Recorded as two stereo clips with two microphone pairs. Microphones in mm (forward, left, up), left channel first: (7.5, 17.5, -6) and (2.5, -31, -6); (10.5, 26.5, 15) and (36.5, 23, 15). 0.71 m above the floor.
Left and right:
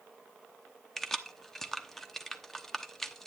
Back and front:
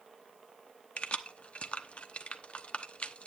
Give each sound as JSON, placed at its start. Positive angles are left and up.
{"t": 1.0, "sound": "keys jangling", "azimuth_deg": 165, "distance_m": 0.8}